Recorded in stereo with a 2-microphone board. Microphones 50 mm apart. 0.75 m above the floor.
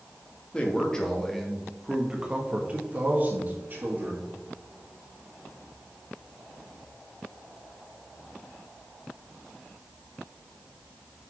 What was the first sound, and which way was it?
A man speaking, 20° left (ahead or behind).